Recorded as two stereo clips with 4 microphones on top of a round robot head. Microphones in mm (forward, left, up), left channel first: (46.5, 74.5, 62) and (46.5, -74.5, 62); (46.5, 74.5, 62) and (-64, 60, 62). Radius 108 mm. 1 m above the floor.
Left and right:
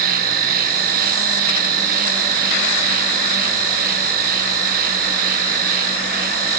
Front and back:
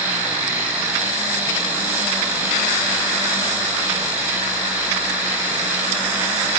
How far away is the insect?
About 1.2 m.